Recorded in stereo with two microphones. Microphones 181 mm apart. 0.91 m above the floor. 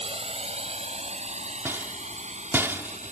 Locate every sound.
0.0 s a drone: 35° right (ahead or behind); by 3.1 s 40° right (ahead or behind)
1.6 s a rattle: 15° right (ahead or behind)